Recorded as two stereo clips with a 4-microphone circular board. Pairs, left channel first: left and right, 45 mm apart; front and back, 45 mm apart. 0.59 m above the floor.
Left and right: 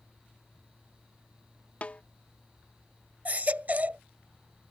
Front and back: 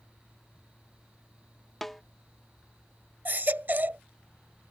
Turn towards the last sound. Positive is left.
turn(degrees=-140)